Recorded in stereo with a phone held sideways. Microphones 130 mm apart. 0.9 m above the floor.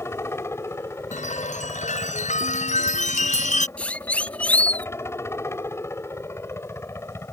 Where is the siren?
10° left (ahead or behind).